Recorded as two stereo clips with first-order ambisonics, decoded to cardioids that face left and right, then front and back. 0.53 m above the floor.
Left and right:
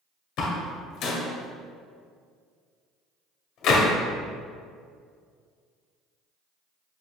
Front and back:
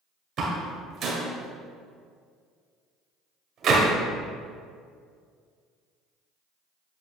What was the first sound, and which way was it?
A door slam, 125° left.